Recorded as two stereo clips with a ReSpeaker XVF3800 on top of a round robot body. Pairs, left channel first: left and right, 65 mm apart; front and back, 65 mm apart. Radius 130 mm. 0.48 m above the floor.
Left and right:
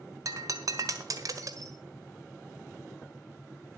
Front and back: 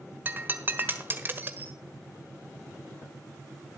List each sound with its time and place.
0.2 s breaking glass: 125° right, 1.6 m